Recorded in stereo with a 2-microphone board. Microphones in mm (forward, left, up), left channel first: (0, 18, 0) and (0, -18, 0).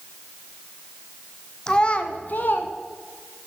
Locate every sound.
1.7 s a child speaking: 20° left (ahead or behind), 0.9 m; by 2.7 s 55° left (ahead or behind), 1.0 m